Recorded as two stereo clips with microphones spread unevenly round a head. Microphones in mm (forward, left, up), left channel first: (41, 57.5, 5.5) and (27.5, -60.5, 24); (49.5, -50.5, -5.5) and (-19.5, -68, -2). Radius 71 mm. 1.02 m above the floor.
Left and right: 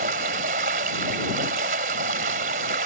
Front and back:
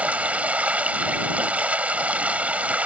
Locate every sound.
0.0 s running water: 95° right